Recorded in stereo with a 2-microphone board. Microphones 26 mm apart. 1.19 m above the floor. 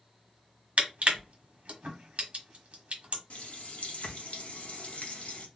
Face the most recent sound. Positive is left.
turn(degrees=60)  # may be behind; listen again after turning